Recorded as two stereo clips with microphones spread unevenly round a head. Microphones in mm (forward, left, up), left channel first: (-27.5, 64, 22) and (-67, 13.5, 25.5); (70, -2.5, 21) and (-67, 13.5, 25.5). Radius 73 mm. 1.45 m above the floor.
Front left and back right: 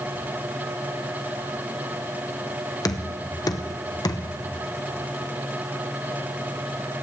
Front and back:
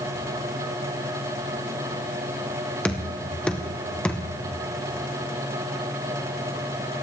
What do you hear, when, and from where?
2.9 s knocking: 75° left, 1.0 m